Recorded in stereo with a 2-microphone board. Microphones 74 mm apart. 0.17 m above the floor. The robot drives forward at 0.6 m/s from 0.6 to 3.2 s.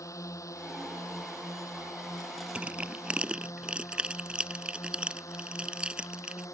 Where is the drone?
45° left (ahead or behind).